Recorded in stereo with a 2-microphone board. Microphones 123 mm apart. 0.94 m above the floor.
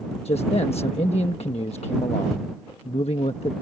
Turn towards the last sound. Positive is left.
turn(degrees=55)  # may be behind; listen again after turning